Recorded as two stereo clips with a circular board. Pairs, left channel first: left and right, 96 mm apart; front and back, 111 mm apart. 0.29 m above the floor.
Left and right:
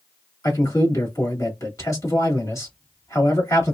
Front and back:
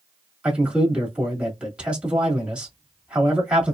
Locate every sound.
0.4 s a man speaking: 105° left, 1.8 m